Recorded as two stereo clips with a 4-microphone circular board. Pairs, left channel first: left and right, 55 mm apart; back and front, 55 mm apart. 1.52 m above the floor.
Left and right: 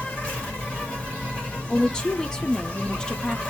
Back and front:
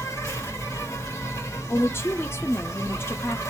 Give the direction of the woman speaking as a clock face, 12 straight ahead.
7 o'clock.